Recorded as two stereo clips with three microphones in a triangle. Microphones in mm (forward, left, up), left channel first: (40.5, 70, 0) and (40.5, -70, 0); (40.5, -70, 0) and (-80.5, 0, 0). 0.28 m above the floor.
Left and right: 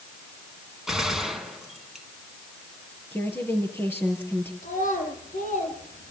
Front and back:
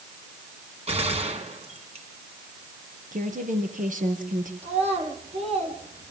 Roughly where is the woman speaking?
Behind.